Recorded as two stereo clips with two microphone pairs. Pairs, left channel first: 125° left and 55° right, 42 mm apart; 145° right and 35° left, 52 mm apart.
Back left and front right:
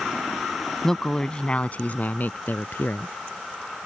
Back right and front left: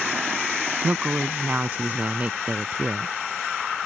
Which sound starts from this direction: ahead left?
A woman speaking, at 0.8 s.